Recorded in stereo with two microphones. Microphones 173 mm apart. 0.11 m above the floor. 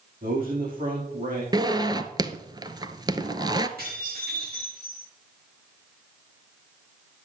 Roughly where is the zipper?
Right.